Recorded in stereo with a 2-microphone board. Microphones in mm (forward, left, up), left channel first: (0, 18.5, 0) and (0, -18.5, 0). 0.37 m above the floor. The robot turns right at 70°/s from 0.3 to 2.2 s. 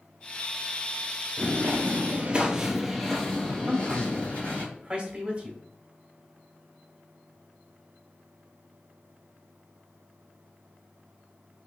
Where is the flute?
No flute in this recording.